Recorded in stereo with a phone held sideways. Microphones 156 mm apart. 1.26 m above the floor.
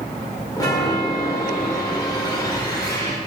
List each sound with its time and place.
0.6 s a chime: 25° left (ahead or behind), 2.0 m